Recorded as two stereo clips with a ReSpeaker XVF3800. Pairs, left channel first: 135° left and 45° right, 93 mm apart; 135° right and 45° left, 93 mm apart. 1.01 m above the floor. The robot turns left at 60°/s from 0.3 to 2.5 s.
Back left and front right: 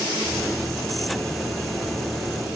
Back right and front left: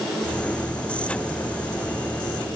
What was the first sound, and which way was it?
Only background noise.